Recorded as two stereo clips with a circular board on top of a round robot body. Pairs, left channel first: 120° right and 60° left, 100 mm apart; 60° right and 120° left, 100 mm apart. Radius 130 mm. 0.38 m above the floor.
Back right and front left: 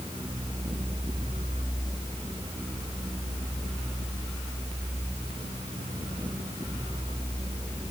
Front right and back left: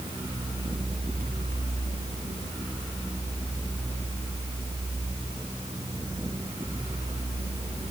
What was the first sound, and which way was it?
Only background noise.